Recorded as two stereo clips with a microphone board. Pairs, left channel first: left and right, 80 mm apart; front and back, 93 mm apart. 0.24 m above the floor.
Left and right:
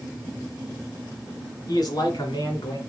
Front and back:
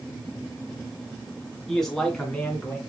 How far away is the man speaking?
About 2 m.